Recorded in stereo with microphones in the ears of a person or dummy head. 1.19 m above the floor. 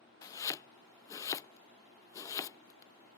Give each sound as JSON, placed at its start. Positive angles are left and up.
{"t": 0.2, "sound": "chopping", "side_deg": 15}